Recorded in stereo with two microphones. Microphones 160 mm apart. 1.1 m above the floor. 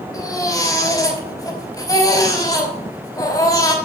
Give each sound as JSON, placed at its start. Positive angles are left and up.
{"t": 0.1, "sound": "a baby crying", "side_deg": 25, "distance_m": 3.5}